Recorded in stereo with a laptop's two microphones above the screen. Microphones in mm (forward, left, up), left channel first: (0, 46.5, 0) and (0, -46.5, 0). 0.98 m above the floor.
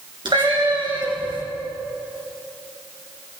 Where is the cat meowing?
60° right (ahead or behind), 3 m.